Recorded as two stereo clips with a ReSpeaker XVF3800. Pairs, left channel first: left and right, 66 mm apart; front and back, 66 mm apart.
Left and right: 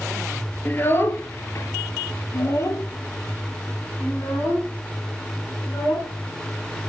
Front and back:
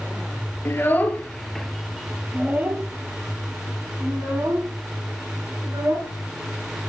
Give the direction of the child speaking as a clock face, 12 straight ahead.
11 o'clock.